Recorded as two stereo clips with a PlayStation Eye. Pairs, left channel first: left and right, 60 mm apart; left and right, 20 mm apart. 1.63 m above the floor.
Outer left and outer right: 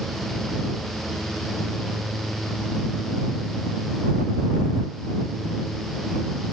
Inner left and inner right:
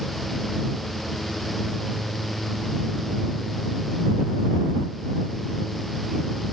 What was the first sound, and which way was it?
Only background noise.